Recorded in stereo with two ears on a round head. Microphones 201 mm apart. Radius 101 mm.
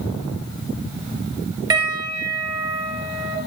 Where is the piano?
20° right (ahead or behind), 6.5 m.